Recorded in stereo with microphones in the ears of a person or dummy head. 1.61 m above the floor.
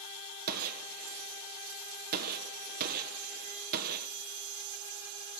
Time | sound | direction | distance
0.5 | a gunshot | 50° right (ahead or behind) | 1.5 m